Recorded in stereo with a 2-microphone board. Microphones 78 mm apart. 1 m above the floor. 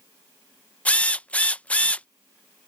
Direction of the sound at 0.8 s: 15° left (ahead or behind).